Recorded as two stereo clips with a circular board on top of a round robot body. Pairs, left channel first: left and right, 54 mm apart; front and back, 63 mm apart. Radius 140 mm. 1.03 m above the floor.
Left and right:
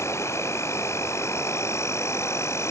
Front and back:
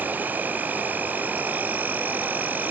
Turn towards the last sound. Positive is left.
turn(degrees=120)